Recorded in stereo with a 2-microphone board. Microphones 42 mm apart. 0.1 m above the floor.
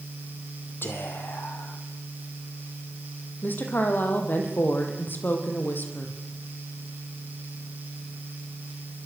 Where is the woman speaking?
50° left (ahead or behind), 4.5 m.